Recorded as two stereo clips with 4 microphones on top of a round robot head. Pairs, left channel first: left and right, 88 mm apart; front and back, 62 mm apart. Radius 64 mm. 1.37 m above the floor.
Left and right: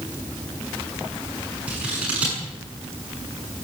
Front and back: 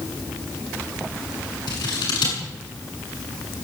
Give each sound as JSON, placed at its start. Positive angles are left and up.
{"t": 1.7, "sound": "scissors", "azimuth_deg": -10, "distance_m": 7.5}